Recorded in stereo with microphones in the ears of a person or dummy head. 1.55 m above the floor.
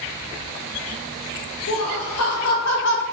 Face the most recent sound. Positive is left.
turn(degrees=50)  # may be behind; listen again after turning